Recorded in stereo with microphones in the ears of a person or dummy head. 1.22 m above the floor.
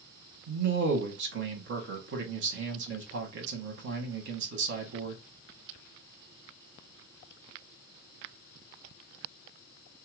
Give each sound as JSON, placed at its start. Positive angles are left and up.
{"t": 0.5, "sound": "a man speaking", "side_deg": -55, "distance_m": 1.2}